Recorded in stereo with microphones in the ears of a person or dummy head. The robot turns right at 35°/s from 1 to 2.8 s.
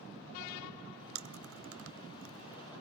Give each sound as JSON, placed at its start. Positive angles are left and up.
{"t": 1.1, "sound": "chewing", "side_deg": -70, "distance_m": 1.3}